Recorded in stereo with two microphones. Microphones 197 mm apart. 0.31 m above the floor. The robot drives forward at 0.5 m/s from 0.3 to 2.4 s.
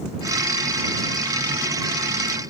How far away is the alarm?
I don't hear an alarm.